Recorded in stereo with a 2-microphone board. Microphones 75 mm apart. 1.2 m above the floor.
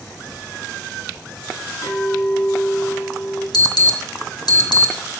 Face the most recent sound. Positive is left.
turn(degrees=70)  # may be behind; listen again after turning